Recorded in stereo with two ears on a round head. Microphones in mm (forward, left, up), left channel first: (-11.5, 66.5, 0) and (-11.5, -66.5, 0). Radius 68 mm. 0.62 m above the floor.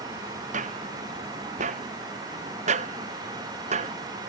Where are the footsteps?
55° right (ahead or behind); by 4.3 s 50° right (ahead or behind).